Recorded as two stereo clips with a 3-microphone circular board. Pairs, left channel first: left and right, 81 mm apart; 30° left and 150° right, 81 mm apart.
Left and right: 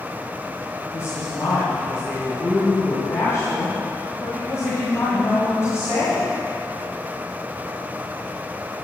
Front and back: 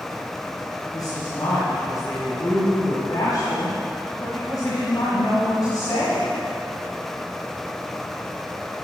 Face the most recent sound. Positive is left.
turn(degrees=45)